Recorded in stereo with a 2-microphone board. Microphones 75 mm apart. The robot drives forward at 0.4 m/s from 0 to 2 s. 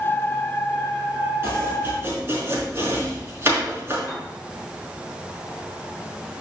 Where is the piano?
10° left (ahead or behind), 4.5 m.